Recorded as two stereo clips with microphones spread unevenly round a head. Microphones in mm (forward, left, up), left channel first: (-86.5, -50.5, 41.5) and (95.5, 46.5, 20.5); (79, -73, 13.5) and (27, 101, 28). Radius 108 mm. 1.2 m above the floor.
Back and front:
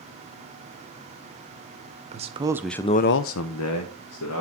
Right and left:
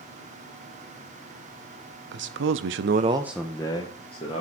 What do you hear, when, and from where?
2.1 s a man speaking: 85° left, 1.0 m; by 4.4 s 135° right, 1.6 m